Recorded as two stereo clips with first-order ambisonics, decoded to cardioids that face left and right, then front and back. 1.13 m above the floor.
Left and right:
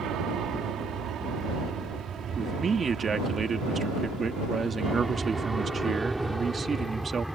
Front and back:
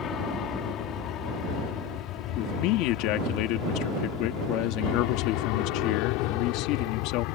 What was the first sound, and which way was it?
An aircraft, 45° right.